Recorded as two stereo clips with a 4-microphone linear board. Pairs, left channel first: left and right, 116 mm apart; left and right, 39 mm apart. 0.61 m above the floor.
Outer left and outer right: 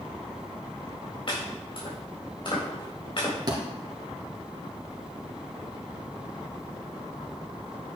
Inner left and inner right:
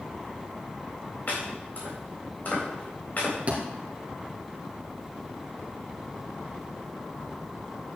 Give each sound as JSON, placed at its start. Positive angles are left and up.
{"t": 1.3, "sound": "chopping", "side_deg": 50, "distance_m": 3.5}
{"t": 3.5, "sound": "a thud", "side_deg": -35, "distance_m": 2.5}